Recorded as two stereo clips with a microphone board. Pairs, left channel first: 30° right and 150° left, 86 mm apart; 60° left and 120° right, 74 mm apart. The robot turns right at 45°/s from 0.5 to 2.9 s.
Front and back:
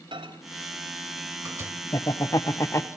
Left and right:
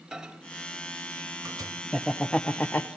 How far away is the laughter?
About 0.9 m.